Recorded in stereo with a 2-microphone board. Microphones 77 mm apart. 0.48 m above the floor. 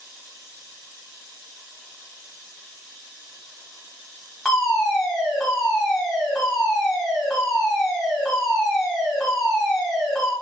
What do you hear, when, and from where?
4.5 s a fire alarm: 10° left (ahead or behind), 1.7 m